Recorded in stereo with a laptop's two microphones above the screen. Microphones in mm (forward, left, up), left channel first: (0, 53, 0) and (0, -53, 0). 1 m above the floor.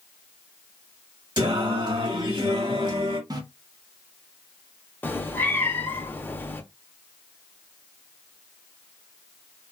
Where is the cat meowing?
20° left (ahead or behind), 0.7 m.